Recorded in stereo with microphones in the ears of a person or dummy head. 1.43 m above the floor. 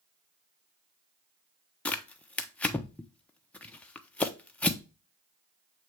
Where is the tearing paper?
10° left (ahead or behind), 0.7 m.